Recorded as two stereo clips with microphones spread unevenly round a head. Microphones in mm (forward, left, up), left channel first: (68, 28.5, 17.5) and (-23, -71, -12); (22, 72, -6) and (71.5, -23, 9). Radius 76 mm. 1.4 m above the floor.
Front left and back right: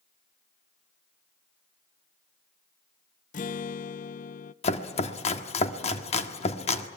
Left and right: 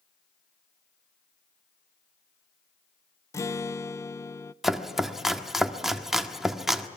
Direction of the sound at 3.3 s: 50° left.